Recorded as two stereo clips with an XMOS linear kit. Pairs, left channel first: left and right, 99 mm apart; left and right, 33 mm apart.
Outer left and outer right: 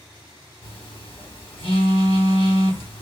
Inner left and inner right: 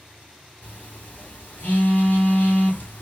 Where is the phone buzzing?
70° left (ahead or behind), 2 m.